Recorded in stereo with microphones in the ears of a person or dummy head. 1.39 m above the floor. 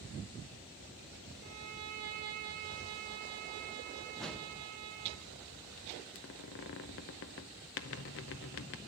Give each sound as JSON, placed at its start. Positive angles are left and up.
{"t": 1.4, "sound": "a violin", "side_deg": -45, "distance_m": 1.4}
{"t": 4.2, "sound": "a whoosh", "side_deg": 5, "distance_m": 1.0}
{"t": 6.2, "sound": "a squeak", "side_deg": 50, "distance_m": 0.6}